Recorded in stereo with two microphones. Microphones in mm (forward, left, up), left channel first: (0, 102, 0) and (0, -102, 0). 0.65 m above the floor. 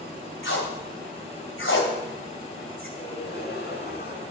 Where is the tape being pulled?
80° left, 2.5 m.